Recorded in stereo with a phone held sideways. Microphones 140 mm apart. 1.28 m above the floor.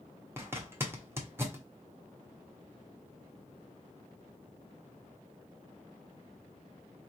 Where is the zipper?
15° right (ahead or behind), 1.0 m.